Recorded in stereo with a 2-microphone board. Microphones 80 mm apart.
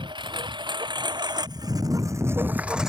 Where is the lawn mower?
80° right; by 2.9 s 5° right (ahead or behind).